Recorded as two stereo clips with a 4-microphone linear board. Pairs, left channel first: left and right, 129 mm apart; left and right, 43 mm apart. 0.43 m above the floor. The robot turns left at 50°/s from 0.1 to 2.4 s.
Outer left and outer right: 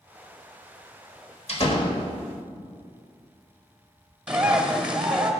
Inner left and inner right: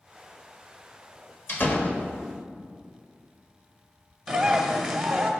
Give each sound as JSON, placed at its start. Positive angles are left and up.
{"t": 1.5, "sound": "a door slam", "azimuth_deg": 75, "distance_m": 1.5}
{"t": 4.3, "sound": "a bird", "side_deg": -10, "distance_m": 1.7}